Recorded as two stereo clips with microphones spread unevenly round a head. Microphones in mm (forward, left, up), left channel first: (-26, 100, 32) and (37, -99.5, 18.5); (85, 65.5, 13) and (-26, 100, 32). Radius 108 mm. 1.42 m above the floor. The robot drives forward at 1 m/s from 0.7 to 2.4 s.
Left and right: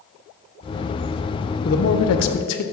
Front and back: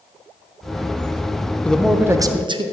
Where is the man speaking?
60° left, 1.0 m; by 2.6 s 110° left, 0.9 m.